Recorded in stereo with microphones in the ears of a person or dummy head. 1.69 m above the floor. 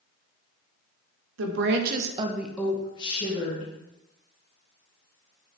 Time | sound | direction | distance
1.4 | a woman speaking | 80° right | 1.1 m